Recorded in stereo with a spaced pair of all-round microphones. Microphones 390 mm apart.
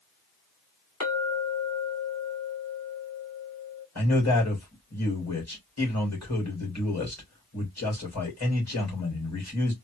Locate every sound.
1.0 s a clink: 50° left (ahead or behind), 1.8 m
4.0 s a man speaking: 45° left (ahead or behind), 2.5 m